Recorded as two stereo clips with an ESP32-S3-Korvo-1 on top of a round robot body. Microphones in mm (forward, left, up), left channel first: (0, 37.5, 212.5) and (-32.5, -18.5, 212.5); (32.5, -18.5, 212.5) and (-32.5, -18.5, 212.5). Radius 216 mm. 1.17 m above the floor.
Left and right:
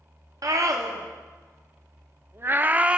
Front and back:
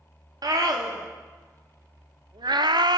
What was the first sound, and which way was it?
A scream, 155° right.